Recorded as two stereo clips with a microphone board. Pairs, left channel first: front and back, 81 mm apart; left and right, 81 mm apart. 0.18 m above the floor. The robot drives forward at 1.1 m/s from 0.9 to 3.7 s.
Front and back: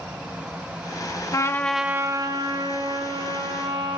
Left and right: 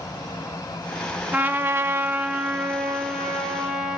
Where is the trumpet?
25° right, 0.7 m; by 4.0 s 175° right, 2 m.